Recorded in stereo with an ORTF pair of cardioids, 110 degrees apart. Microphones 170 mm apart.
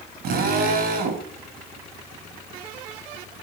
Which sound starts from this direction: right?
A drill, at 0.2 s.